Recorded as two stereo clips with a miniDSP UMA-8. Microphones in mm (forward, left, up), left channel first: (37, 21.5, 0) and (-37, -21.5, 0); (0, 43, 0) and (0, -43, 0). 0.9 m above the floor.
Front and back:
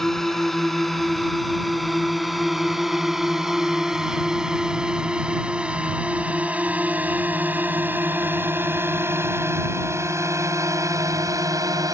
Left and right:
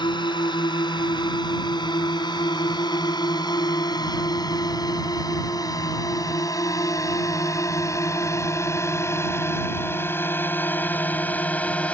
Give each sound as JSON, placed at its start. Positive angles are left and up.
{"t": 0.0, "sound": "a drone", "azimuth_deg": 115}